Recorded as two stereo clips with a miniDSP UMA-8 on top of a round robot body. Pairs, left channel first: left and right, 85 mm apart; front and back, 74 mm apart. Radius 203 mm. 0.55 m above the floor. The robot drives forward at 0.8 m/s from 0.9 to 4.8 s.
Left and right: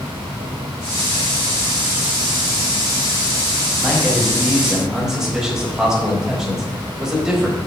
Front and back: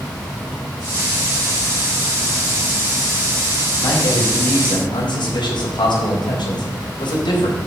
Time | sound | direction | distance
3.8 | a man speaking | 5° right | 5 m